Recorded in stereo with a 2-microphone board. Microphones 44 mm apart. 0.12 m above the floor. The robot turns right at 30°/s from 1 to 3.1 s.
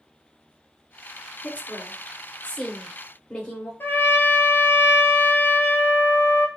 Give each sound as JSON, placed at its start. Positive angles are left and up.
{"t": 1.4, "sound": "a woman speaking", "side_deg": 35, "distance_m": 1.8}
{"t": 3.8, "sound": "a trumpet", "side_deg": 65, "distance_m": 0.7}